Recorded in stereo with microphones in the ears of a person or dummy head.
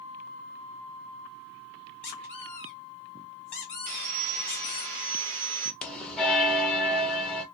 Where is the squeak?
10° left (ahead or behind), 1.7 m.